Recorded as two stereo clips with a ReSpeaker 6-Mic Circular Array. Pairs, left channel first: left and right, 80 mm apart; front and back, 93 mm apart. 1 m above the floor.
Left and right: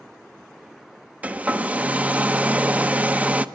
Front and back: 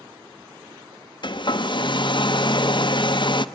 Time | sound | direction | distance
1.2 | a hair dryer | 20° right | 0.9 m